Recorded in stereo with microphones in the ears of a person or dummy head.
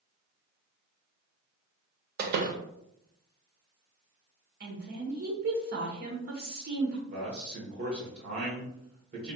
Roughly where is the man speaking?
Right.